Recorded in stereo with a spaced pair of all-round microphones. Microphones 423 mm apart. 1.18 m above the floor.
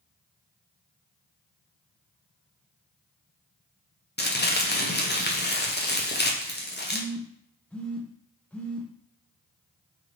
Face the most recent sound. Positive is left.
turn(degrees=5)  # may be behind; listen again after turning